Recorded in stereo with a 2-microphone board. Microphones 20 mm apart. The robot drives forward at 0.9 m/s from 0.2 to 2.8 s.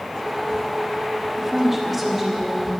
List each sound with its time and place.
1.4 s a woman speaking: 15° right (ahead or behind), 1.3 m; by 2.7 s 10° right (ahead or behind), 2.5 m